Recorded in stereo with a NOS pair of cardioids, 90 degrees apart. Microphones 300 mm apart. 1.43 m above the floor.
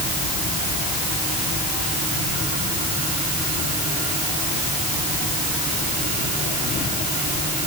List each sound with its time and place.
Only background noise.